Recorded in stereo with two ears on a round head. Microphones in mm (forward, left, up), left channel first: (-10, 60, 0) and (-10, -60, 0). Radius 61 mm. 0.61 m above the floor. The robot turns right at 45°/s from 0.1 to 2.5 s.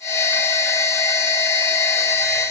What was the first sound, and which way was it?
Only background noise.